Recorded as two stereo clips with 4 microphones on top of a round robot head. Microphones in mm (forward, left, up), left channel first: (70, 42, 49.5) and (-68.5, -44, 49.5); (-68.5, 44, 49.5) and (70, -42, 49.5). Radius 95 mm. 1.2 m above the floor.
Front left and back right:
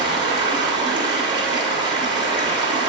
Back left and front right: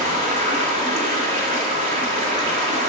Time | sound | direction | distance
0.0 | running water | 85° right | 2 m